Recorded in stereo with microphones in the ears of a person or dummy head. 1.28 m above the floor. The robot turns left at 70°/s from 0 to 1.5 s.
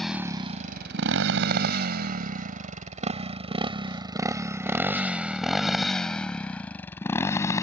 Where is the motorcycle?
5° left (ahead or behind); by 7.6 s 20° left (ahead or behind).